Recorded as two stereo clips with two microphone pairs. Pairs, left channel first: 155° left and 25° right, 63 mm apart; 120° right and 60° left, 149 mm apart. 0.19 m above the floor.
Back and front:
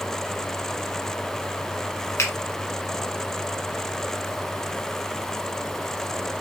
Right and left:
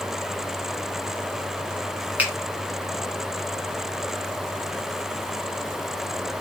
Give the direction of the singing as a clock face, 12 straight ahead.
No singing in this recording.